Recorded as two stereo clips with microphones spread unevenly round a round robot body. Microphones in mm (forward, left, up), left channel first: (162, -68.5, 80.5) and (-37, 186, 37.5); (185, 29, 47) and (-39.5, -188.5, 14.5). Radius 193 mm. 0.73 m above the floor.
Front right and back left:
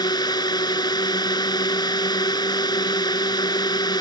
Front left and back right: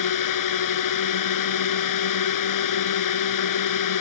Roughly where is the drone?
Ahead left.